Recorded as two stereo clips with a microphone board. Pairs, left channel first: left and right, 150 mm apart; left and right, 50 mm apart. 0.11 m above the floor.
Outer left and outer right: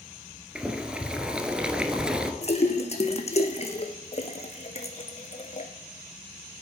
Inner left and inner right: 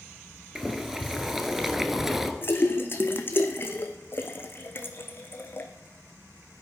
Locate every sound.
0.6 s boiling: 5° right (ahead or behind), 1.1 m
2.4 s a splash: 45° left (ahead or behind), 1.2 m